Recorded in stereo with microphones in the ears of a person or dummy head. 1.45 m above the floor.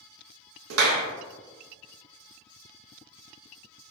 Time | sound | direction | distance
0.7 | a clap | 75° right (ahead or behind) | 0.6 m